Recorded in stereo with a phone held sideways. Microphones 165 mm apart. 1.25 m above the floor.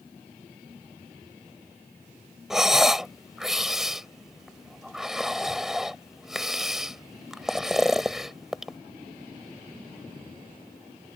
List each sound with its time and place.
2.5 s breathing: 5° right (ahead or behind)